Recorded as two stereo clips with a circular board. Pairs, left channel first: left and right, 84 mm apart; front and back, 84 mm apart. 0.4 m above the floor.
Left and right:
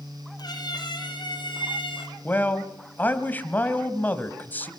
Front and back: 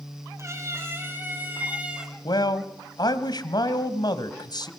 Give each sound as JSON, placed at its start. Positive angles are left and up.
{"t": 0.4, "sound": "a cat meowing", "azimuth_deg": 125, "distance_m": 5.0}
{"t": 2.2, "sound": "a man speaking", "azimuth_deg": 25, "distance_m": 2.0}